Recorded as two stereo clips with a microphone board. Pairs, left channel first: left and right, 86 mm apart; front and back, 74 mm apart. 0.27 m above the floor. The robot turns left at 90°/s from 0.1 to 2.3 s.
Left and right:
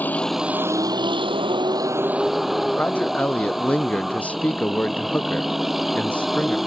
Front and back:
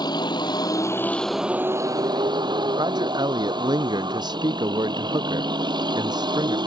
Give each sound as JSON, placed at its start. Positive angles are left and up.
{"t": 0.0, "sound": "a vehicle", "azimuth_deg": 20}
{"t": 2.8, "sound": "a man speaking", "azimuth_deg": 165}